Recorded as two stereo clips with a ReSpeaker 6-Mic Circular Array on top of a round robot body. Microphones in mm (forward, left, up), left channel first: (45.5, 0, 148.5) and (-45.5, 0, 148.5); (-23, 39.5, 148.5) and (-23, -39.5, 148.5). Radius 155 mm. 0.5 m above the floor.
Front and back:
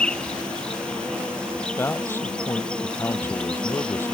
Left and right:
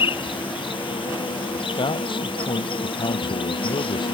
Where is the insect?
80° left.